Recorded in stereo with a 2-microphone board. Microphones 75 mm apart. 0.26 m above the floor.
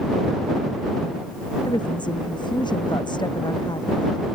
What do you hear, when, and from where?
1.7 s a woman speaking: 85° left; by 4.2 s 80° left